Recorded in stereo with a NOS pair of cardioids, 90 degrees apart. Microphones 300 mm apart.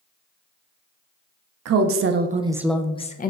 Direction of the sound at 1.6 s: 60° right.